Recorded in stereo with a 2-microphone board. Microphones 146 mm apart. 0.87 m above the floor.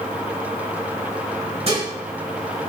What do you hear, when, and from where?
1.7 s dishes clattering: 45° right (ahead or behind), 5.5 m